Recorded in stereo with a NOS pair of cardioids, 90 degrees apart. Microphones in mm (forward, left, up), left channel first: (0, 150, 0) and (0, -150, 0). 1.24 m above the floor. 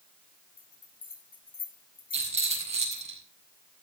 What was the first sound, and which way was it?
A bell, 30° left.